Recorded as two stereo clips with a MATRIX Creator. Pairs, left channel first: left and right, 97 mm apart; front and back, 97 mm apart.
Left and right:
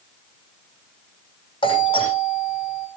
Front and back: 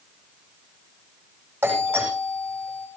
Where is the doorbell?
110° left, 9 m.